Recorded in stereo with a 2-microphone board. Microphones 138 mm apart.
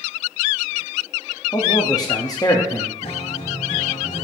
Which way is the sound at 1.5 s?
30° left (ahead or behind).